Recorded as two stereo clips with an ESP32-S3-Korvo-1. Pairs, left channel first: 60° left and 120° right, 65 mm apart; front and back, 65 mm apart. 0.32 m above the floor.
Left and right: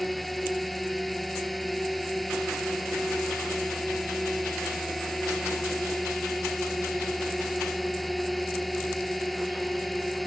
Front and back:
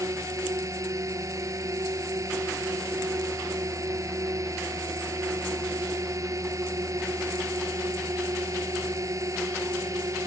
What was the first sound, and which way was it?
A drone, 150° left.